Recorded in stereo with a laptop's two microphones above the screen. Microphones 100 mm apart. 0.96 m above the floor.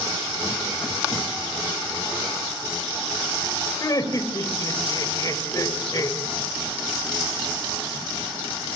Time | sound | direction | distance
3.8 | laughter | 40° left (ahead or behind) | 4 m